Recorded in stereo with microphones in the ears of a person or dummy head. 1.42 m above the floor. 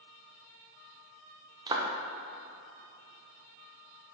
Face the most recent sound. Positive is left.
turn(degrees=-20)  # may be behind; listen again after turning